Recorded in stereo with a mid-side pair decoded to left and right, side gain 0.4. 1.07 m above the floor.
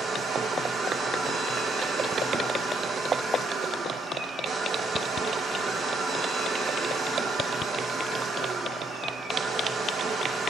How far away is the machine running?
About 9 m.